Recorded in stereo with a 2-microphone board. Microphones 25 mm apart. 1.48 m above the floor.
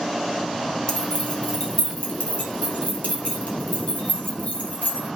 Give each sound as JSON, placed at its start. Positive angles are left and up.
{"t": 0.9, "sound": "keys jangling", "side_deg": 50, "distance_m": 3.5}